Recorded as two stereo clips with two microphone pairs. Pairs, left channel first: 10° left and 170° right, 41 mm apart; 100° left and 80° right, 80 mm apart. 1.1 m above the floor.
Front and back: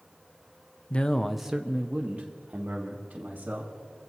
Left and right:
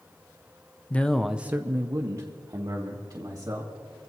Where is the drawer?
I don't hear a drawer.